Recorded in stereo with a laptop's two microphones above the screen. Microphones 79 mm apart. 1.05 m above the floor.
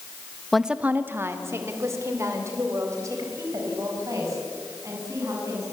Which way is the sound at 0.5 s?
5° left (ahead or behind).